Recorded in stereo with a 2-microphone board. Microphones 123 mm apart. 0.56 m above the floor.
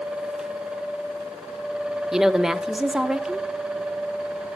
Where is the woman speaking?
5° right (ahead or behind), 0.8 m.